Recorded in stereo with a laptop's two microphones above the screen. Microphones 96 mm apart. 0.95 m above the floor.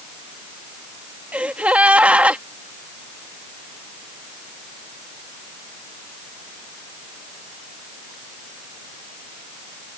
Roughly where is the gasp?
Centre.